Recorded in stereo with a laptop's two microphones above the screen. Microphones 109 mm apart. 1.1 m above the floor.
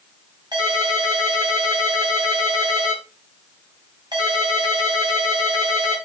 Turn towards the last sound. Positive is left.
turn(degrees=-45)  # may be behind; listen again after turning